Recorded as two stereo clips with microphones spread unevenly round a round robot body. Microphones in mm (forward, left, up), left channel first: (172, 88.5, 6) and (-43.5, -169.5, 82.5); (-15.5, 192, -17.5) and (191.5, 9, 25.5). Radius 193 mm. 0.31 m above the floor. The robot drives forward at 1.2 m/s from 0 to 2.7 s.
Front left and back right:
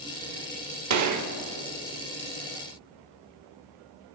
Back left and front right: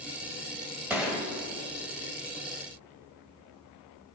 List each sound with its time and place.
0.9 s a gunshot: 135° right, 1.5 m; by 1.3 s 150° right, 1.8 m